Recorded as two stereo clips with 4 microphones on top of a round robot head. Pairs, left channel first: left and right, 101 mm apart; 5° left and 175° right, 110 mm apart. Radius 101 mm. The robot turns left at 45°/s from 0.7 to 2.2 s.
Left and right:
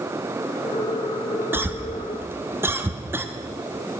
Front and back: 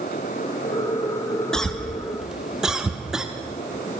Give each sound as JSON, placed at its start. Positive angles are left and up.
{"t": 1.5, "sound": "a cough", "azimuth_deg": -65, "distance_m": 1.0}